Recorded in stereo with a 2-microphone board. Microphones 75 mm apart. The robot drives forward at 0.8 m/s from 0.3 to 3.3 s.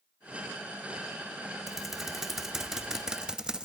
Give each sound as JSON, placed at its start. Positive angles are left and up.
{"t": 1.7, "sound": "typing on a keyboard", "side_deg": -5, "distance_m": 1.8}